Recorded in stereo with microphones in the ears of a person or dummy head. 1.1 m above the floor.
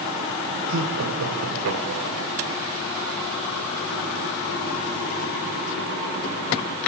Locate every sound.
0.7 s laughter: 80° right, 4.5 m; by 2.3 s 70° right (ahead or behind), 4.5 m